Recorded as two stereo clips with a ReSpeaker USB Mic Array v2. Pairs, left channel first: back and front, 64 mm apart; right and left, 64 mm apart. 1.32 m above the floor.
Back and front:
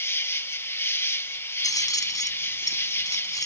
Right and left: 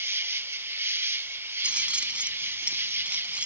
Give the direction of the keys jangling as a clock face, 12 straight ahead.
7 o'clock.